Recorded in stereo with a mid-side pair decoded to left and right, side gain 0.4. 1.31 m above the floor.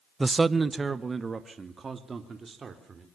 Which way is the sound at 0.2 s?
20° right.